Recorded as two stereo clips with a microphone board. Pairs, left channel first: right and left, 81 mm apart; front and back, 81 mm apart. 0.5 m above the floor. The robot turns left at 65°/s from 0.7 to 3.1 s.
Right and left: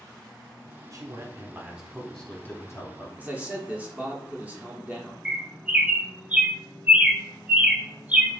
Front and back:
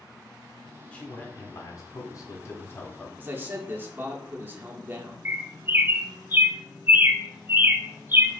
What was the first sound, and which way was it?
A man speaking, 70° left.